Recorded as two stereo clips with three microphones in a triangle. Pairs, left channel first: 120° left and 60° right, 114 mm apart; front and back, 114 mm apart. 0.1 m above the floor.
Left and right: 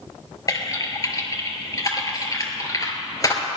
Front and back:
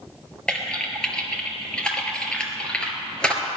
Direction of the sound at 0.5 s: 80° left.